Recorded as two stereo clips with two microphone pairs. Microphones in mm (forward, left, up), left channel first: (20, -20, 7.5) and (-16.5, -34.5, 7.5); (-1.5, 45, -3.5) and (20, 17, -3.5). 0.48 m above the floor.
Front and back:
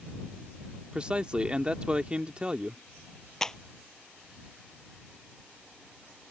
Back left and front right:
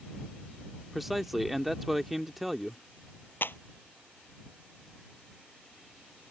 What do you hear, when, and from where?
0.9 s a man speaking: 140° right
3.4 s a clap: 100° left